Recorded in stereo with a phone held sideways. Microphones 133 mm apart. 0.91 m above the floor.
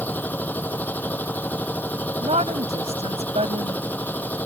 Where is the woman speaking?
50° right (ahead or behind).